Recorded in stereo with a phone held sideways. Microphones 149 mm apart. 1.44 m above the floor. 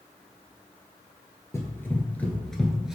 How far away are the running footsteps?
About 1.6 m.